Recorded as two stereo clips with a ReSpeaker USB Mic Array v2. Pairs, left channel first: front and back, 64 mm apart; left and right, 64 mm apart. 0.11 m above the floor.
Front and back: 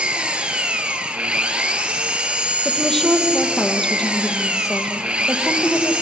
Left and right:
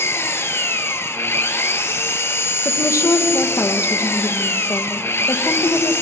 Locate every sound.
0.0 s an engine running: 115° left, 1.2 m
2.6 s a woman speaking: 80° left, 3 m